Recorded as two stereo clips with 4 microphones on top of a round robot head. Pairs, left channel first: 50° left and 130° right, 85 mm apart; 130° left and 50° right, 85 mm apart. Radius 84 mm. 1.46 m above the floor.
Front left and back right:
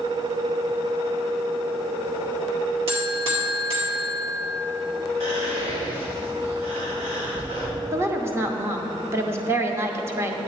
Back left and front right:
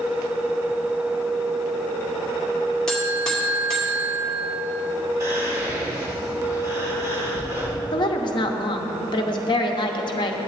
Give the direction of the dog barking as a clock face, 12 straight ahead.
No dog barking in this recording.